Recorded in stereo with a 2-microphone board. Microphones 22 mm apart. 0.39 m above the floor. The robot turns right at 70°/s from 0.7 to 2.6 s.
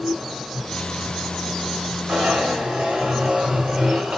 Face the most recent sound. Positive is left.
turn(degrees=-70)